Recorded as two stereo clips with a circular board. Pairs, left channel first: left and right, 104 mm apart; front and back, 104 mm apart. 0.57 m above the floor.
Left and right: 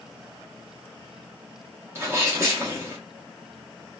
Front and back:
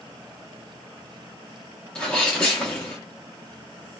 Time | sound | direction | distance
1.9 | a sneeze | 70° right | 0.7 m